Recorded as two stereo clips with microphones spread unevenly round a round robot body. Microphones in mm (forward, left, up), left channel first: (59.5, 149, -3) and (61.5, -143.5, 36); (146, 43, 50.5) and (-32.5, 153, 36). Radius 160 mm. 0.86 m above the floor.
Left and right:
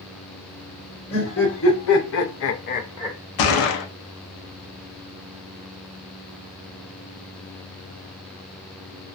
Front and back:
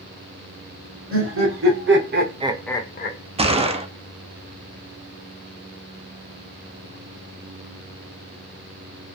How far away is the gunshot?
About 0.6 m.